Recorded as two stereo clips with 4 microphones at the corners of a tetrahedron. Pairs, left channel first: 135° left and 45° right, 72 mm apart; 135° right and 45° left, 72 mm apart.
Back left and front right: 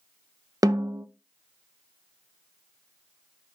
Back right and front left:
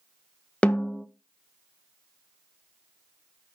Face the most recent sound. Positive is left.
turn(degrees=-65)